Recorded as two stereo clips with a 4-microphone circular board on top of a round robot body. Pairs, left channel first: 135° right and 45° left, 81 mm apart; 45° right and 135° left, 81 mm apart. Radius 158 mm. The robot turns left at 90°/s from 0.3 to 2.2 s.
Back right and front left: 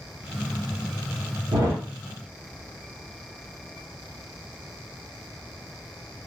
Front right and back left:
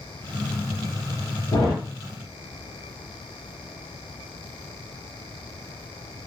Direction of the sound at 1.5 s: 5° left.